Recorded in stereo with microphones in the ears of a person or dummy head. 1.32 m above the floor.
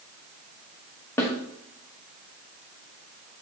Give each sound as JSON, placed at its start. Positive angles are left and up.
{"t": 1.2, "sound": "a snare drum", "side_deg": 10, "distance_m": 1.3}